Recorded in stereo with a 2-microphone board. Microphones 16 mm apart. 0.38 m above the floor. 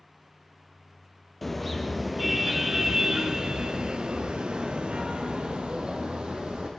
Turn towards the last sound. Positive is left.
turn(degrees=-70)  # may be behind; listen again after turning